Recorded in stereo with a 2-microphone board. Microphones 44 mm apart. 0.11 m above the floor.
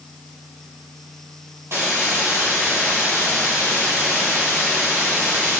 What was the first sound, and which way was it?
A hiss, 70° right (ahead or behind).